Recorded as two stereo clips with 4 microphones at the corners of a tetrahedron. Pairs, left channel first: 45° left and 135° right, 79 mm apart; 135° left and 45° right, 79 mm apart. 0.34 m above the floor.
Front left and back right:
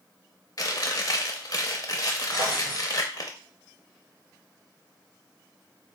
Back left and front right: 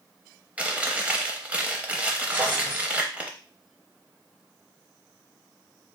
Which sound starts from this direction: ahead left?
Chewing, at 0.6 s.